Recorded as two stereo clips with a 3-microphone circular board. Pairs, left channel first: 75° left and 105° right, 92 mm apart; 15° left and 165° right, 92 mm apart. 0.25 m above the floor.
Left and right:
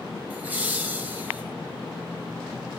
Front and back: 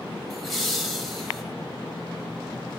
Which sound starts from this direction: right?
Laughter, at 0.3 s.